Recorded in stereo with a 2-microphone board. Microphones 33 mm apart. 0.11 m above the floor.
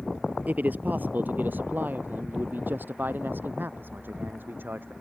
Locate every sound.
0.5 s a man speaking: 50° right (ahead or behind); by 4.9 s 70° right (ahead or behind)